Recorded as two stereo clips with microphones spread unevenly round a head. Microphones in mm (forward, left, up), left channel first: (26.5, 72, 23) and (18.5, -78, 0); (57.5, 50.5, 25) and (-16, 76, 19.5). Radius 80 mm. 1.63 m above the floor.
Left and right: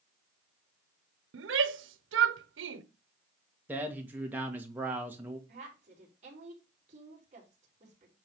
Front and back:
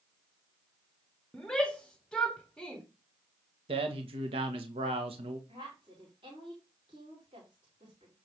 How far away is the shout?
About 1.0 m.